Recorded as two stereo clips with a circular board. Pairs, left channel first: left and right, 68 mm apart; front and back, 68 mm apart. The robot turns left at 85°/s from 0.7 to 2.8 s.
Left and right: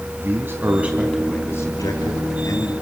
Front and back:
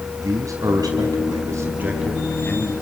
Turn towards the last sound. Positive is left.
turn(degrees=35)